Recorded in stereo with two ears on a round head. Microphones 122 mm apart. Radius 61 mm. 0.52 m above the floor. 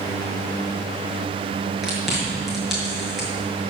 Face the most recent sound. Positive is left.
turn(degrees=0)  # may be behind; listen again after turning